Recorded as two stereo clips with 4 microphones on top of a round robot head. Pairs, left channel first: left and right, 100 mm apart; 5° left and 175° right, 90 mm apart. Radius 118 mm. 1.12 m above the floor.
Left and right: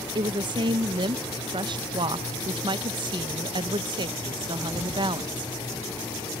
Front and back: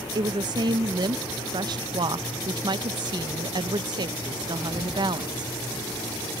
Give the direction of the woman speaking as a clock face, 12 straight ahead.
4 o'clock.